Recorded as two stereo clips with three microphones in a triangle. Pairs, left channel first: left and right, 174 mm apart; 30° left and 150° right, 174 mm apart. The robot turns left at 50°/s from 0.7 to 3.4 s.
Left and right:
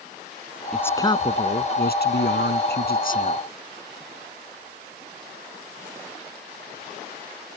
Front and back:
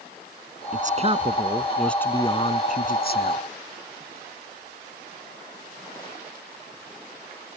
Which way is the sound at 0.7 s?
175° left.